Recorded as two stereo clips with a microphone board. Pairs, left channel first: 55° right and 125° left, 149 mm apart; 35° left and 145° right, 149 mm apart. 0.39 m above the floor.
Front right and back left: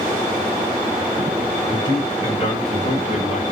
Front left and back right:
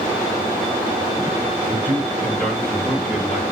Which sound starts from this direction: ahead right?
A man speaking, at 1.7 s.